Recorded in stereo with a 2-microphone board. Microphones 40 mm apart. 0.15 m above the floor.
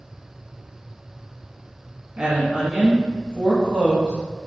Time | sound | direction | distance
2.2 | a woman speaking | 30° right (ahead or behind) | 1.1 m